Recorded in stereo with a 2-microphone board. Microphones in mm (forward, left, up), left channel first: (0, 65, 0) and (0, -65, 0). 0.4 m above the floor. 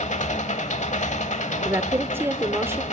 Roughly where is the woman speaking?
Centre.